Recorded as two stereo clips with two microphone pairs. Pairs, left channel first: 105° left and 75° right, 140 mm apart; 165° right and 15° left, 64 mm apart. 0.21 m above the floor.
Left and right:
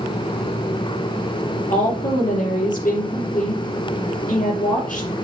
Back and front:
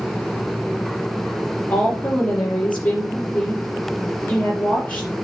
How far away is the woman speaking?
About 5.5 m.